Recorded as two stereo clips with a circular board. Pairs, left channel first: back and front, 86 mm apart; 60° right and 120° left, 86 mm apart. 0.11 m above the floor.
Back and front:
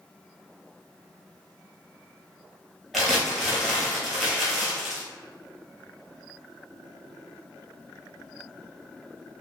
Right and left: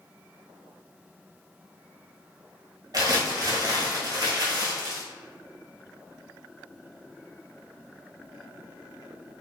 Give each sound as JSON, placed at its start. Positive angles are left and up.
{"t": 2.9, "sound": "crumpling", "azimuth_deg": 95, "distance_m": 1.1}